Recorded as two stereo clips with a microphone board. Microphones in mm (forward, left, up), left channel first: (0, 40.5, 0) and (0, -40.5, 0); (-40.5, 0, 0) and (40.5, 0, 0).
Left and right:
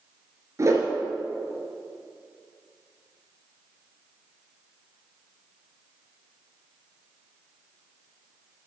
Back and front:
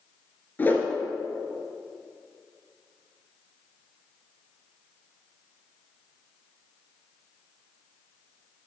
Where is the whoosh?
125° right, 1.9 m.